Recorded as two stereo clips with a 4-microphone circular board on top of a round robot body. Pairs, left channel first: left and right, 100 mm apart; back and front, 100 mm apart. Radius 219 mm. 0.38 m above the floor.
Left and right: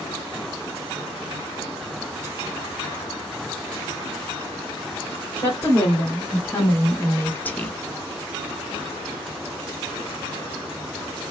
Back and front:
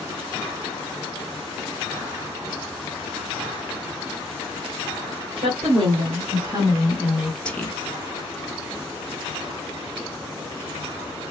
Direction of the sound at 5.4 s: 20° left.